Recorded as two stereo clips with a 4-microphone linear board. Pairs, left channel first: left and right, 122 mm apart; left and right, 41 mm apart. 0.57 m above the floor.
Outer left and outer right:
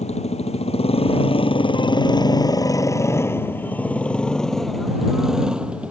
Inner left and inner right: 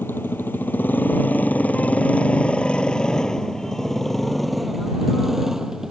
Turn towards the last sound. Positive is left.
turn(degrees=-10)  # may be behind; listen again after turning